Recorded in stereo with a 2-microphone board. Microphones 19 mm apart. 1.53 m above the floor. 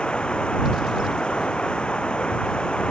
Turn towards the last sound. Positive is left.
turn(degrees=50)  # may be behind; listen again after turning